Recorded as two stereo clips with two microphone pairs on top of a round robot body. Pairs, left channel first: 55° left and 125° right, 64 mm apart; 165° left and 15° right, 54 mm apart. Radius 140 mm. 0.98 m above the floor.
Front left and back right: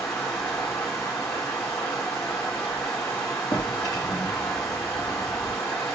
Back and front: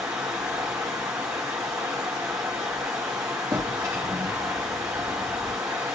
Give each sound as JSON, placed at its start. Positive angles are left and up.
{"t": 0.0, "sound": "running water", "azimuth_deg": -15, "distance_m": 0.7}
{"t": 3.5, "sound": "a drawer", "azimuth_deg": 20, "distance_m": 0.5}